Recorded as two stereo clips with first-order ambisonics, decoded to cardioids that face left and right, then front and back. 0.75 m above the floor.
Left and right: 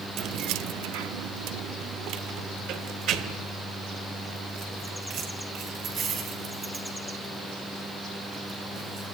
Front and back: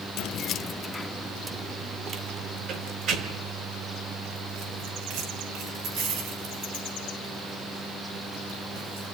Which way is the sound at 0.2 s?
40° right.